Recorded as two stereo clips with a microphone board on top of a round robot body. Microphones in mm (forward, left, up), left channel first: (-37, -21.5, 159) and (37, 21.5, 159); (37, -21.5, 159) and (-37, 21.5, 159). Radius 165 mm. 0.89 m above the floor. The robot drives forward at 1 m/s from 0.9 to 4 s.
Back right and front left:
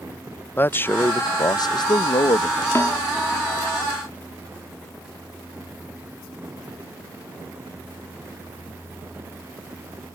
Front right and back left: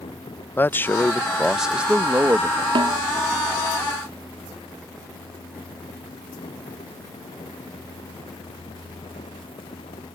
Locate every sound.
0.6 s a man speaking: 90° right; by 2.6 s 155° right
2.8 s a snare drum: 155° left; by 3.0 s 160° left